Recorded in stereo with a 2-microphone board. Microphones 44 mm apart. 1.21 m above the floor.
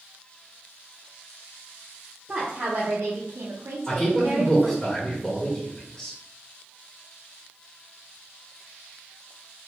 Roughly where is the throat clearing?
No throat clearing in this recording.